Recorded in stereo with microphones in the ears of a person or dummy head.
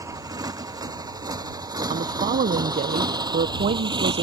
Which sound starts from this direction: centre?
A motorcycle, at 0.0 s.